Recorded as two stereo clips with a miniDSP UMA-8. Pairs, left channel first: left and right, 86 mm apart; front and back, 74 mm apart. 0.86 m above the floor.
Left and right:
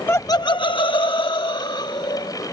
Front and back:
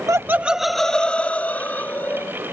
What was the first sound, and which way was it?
Laughter, 150° left.